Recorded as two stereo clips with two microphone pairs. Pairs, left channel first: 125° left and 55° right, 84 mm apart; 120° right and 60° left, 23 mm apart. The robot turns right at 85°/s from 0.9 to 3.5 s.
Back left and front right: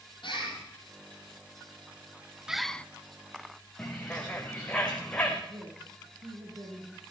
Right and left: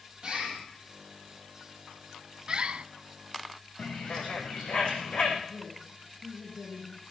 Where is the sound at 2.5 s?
25° left, 0.5 m; by 2.9 s 55° left, 0.5 m.